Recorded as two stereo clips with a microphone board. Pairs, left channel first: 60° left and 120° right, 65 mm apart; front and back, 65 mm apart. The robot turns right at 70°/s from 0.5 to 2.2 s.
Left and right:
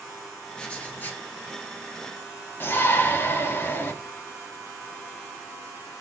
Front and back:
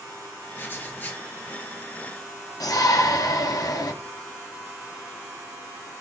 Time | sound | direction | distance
0.6 | writing | 5° right | 0.7 m
2.6 | a shout | 10° left | 0.7 m